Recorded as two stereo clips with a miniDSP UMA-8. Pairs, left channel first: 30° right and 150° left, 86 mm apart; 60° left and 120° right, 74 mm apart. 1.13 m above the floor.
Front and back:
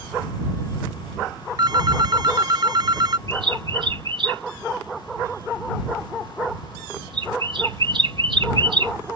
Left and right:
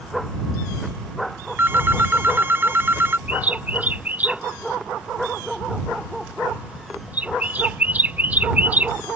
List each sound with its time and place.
1.6 s a phone ringing: straight behind
3.3 s a bird: 170° left